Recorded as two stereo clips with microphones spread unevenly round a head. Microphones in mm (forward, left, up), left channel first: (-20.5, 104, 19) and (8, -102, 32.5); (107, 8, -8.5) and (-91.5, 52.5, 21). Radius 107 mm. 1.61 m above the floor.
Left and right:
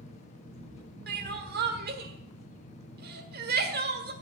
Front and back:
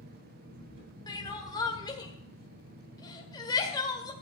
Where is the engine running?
160° left, 10 m.